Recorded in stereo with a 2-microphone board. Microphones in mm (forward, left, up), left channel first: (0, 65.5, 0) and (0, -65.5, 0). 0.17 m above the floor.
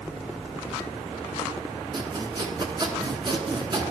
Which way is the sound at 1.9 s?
35° right (ahead or behind).